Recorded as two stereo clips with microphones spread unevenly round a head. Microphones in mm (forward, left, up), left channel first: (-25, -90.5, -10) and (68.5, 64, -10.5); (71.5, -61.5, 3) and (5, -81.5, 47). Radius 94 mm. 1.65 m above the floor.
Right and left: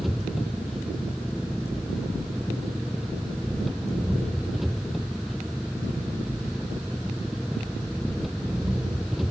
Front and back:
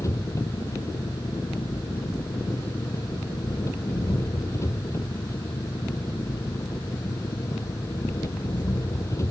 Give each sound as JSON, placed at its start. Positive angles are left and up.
{"t": 0.0, "sound": "an engine running", "azimuth_deg": -30}